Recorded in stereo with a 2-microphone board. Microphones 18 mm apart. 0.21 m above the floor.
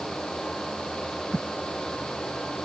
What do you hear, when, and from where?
Only background noise.